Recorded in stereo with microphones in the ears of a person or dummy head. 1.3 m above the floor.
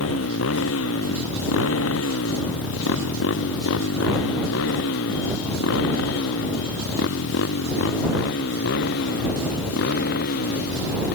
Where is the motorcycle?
85° left; by 11.2 s 60° left (ahead or behind).